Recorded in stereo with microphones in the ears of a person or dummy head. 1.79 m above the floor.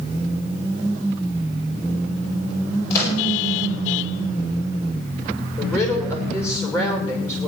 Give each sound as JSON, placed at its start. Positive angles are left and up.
{"t": 2.9, "sound": "a microwave", "side_deg": 15, "distance_m": 8.0}
{"t": 5.6, "sound": "a woman speaking", "side_deg": 15, "distance_m": 6.5}